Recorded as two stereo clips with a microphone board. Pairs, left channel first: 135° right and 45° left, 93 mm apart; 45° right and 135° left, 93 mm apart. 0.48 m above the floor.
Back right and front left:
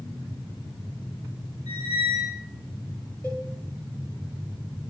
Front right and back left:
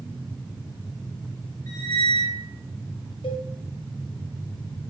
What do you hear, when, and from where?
1.7 s a squeak: 5° left, 2.5 m
3.2 s a cowbell: 60° right, 1.7 m